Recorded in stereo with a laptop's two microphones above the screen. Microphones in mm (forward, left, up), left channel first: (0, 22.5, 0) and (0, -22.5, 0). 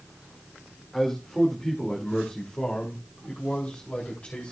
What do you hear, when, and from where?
0.9 s a man speaking: 10° left (ahead or behind), 2 m; by 4.5 s 40° left (ahead or behind), 3.5 m